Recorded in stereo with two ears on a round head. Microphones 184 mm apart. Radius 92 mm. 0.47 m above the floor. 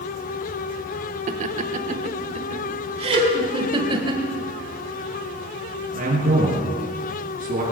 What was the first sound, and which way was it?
Laughter, 40° right (ahead or behind).